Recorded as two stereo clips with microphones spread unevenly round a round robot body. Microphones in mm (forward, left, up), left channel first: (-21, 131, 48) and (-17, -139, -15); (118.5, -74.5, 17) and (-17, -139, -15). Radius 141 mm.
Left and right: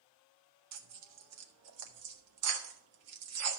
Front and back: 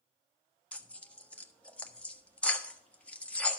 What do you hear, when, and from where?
0.7 s tearing paper: 60° right, 1.6 m